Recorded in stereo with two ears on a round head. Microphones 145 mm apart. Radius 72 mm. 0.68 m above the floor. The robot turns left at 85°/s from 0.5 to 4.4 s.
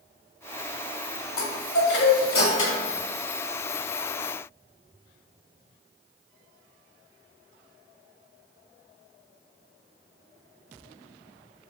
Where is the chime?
150° left, 1.2 m; by 2.9 s 20° left, 1.2 m.